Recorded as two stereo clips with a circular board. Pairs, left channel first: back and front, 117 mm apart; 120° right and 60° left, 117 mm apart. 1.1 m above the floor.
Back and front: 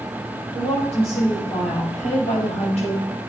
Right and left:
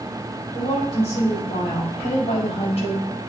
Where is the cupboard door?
I don't hear a cupboard door.